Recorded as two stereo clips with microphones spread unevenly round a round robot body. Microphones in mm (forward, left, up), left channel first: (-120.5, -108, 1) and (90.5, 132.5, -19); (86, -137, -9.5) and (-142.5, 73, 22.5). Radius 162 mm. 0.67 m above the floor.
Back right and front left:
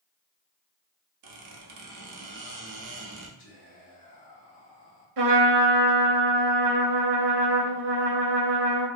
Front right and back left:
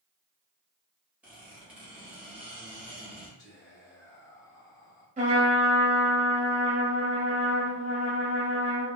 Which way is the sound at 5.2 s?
70° left.